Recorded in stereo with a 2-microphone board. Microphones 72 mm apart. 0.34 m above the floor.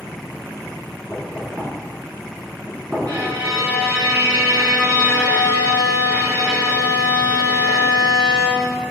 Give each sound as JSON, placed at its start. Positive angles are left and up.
{"t": 1.1, "sound": "knocking", "side_deg": -20, "distance_m": 3.0}
{"t": 3.1, "sound": "a violin", "side_deg": -65, "distance_m": 3.5}